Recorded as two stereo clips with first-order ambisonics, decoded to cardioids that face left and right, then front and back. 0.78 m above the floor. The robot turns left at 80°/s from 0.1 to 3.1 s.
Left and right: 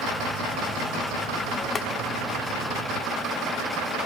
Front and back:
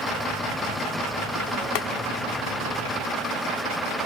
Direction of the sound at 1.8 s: 20° left.